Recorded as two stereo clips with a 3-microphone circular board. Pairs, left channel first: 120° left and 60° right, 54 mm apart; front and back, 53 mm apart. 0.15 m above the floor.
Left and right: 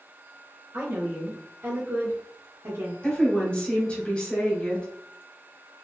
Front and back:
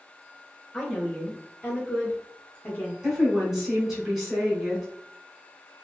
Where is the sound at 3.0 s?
110° left, 1.6 m.